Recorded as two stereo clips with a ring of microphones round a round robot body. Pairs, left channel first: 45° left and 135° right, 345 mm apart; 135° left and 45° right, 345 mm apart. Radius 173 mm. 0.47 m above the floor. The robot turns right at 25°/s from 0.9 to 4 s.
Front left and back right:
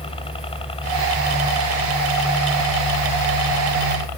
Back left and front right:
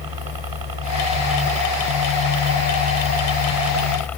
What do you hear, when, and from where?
0.0 s a helicopter: 30° right; by 4.2 s 50° left